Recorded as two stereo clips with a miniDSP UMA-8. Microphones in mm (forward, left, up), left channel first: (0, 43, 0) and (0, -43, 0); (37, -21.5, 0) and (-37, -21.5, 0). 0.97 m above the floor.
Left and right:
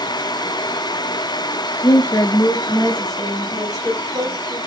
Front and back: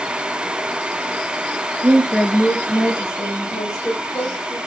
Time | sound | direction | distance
1.8 | a woman speaking | 130° left | 0.6 m